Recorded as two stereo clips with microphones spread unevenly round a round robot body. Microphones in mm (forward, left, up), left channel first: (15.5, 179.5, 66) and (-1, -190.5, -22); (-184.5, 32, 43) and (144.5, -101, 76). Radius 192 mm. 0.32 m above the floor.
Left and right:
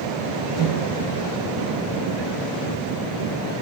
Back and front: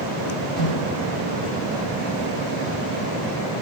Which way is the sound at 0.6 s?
105° left.